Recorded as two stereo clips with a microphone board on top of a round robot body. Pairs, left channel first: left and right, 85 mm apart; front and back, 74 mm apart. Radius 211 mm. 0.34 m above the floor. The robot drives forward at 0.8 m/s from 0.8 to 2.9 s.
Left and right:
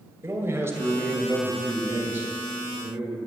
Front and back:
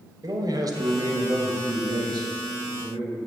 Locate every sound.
0.2 s a man speaking: 150° right, 2 m; by 3.2 s 165° right, 3.5 m